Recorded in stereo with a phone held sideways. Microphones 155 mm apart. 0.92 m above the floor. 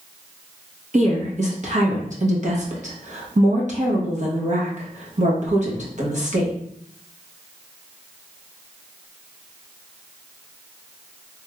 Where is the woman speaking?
50° right (ahead or behind), 1.0 m.